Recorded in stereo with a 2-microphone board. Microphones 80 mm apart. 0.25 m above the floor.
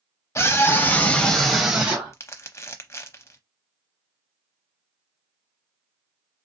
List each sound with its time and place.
0.3 s a scream: 40° left (ahead or behind), 1.1 m; by 2.1 s 20° right (ahead or behind), 1.1 m
2.1 s crumpling: 40° left (ahead or behind), 0.7 m